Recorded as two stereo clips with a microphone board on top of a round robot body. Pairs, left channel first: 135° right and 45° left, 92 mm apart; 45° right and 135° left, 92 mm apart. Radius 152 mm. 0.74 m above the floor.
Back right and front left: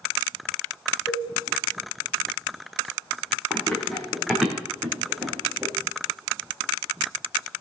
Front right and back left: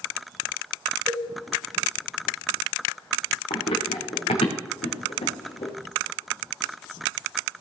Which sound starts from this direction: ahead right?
Running footsteps, at 3.5 s.